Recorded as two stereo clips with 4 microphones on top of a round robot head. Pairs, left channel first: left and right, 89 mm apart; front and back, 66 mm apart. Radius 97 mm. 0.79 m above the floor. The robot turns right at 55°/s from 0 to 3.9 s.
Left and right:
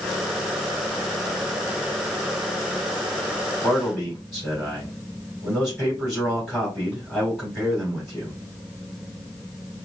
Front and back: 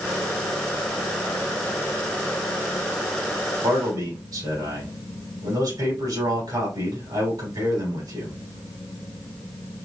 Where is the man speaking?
170° left, 3 m; by 8.4 s 175° right, 3 m.